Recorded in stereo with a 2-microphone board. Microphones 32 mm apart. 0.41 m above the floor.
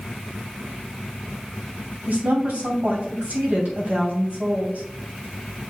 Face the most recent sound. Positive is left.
turn(degrees=-65)  # may be behind; listen again after turning